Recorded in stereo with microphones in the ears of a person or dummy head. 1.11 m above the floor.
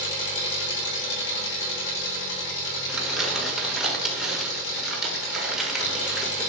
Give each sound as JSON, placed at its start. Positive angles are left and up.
{"t": 0.0, "sound": "an engine running", "side_deg": 60, "distance_m": 3.0}
{"t": 2.9, "sound": "crumpling", "side_deg": -5, "distance_m": 1.5}